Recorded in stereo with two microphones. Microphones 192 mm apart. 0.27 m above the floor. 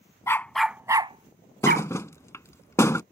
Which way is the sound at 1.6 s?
15° left (ahead or behind).